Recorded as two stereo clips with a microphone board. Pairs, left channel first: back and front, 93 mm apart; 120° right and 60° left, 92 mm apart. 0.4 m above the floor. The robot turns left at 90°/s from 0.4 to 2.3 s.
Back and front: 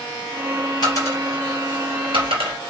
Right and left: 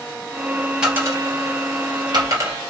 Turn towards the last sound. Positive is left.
turn(degrees=5)